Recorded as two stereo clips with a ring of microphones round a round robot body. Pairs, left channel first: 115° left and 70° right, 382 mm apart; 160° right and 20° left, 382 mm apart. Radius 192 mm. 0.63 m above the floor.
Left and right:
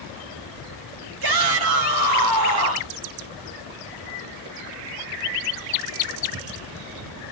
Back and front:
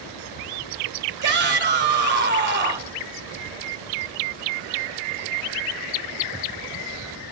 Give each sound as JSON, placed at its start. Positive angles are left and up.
{"t": 1.2, "sound": "a shout", "azimuth_deg": -40, "distance_m": 2.5}